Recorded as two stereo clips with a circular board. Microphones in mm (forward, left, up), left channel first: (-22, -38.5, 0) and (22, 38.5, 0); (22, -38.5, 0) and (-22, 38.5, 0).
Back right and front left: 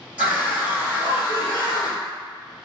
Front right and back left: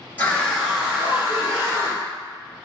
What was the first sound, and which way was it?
A scream, straight ahead.